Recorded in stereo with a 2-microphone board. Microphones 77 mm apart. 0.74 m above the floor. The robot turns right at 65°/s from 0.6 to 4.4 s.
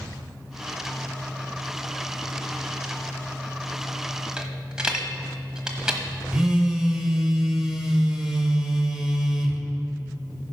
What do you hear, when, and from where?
4.4 s a dropped coin: 15° right (ahead or behind), 1.2 m; by 6.0 s 10° right (ahead or behind), 1.2 m
6.3 s a phone buzzing: 10° right (ahead or behind), 1.1 m